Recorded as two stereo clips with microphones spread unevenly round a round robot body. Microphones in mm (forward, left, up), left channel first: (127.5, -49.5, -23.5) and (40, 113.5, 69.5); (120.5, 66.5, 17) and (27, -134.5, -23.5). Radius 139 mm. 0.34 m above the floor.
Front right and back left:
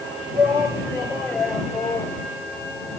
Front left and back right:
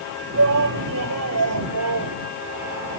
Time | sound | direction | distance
0.3 | a shout | 160° right | ?